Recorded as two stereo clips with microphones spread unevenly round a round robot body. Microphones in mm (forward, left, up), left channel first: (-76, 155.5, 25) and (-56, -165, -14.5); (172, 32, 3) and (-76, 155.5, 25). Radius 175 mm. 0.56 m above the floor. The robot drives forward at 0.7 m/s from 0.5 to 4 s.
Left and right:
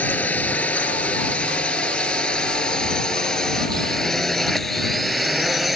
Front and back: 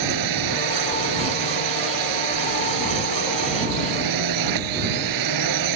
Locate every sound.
0.0 s a drone: straight behind; by 5.8 s 175° right